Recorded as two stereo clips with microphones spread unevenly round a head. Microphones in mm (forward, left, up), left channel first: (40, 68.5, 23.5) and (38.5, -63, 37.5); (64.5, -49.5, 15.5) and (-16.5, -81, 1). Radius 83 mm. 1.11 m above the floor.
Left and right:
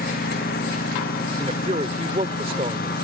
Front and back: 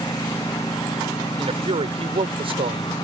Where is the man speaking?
150° right.